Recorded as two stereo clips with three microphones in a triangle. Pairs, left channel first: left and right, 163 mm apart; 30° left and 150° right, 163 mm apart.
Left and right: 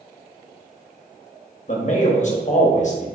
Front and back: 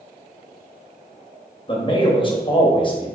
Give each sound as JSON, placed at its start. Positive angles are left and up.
{"t": 1.7, "sound": "a man speaking", "azimuth_deg": 75, "distance_m": 0.8}